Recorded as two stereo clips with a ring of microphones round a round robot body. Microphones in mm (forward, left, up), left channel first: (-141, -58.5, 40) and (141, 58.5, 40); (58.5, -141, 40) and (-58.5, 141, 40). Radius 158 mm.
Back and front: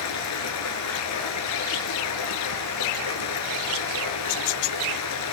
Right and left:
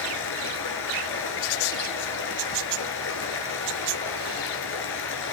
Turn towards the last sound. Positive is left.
turn(degrees=-120)